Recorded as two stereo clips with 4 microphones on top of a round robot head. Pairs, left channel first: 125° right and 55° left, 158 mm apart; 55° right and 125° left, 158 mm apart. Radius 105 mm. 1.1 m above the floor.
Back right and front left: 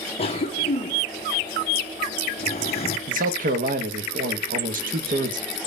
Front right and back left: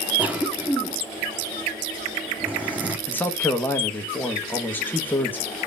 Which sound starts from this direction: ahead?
A man speaking, at 3.1 s.